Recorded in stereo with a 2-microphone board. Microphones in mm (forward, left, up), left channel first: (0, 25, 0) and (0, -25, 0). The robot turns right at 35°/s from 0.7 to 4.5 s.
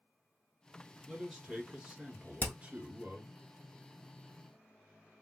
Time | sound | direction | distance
1.1 | a man speaking | 170° right | 1.4 m
2.4 | hammering | 45° left (ahead or behind) | 0.8 m